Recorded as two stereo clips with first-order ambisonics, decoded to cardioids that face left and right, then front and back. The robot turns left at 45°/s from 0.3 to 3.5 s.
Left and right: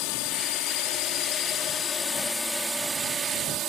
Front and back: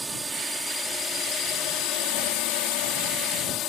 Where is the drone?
100° left; by 3.7 s 45° right.